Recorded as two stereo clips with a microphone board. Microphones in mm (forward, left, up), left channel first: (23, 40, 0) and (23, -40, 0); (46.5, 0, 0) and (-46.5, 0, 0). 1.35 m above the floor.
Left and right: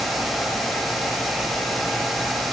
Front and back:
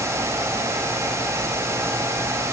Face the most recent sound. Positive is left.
No sound to turn to.